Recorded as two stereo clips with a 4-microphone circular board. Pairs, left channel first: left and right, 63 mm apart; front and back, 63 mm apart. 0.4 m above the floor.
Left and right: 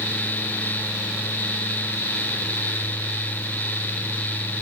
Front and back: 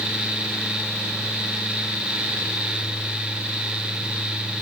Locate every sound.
Only background noise.